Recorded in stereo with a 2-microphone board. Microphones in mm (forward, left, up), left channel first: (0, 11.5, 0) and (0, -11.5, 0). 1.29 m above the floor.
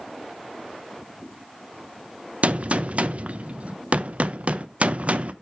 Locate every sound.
2.4 s a gunshot: 65° right (ahead or behind), 0.7 m